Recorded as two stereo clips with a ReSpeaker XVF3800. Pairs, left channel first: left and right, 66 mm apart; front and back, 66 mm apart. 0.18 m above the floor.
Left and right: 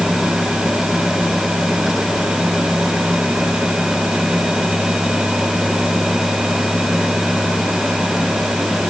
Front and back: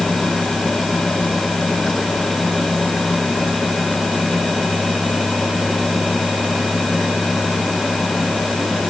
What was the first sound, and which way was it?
Only background noise.